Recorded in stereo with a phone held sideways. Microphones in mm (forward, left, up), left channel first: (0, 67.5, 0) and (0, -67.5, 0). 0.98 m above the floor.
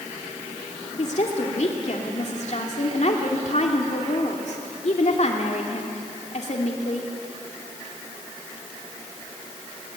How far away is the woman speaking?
About 2.5 m.